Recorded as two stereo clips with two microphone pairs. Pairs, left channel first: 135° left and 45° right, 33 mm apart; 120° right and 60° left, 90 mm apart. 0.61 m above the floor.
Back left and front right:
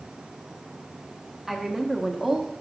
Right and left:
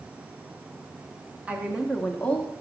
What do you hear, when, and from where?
1.5 s a woman speaking: 15° left, 0.8 m; by 2.5 s 125° right, 0.8 m